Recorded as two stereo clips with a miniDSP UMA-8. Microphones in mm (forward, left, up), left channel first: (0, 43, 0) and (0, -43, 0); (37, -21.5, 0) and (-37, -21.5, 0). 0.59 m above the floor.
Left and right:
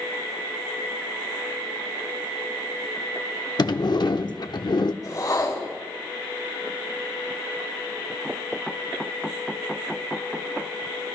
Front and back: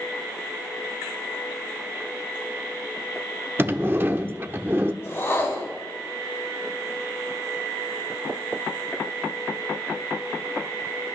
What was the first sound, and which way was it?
A sliding door, 120° left.